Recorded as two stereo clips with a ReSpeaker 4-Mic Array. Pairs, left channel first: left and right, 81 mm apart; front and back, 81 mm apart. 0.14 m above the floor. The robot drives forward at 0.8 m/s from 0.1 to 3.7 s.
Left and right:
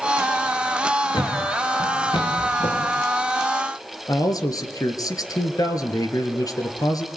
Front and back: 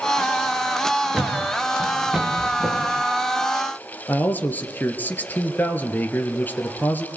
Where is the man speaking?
65° left, 2.5 m.